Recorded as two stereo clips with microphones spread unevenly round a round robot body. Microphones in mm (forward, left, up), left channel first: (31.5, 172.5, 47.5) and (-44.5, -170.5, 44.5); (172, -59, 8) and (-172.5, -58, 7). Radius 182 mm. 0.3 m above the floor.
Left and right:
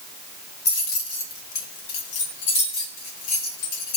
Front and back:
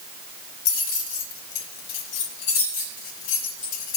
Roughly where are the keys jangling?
Ahead.